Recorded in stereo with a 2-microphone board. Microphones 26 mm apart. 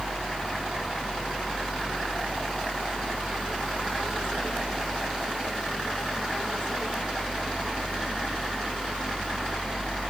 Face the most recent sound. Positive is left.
No sound to turn to.